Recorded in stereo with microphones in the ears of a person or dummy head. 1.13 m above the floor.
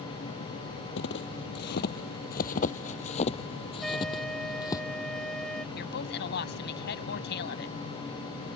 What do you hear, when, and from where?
1.0 s footsteps: 60° left (ahead or behind); by 4.8 s 20° left (ahead or behind)
3.8 s a trumpet: 5° left (ahead or behind)
5.8 s a woman speaking: 60° left (ahead or behind)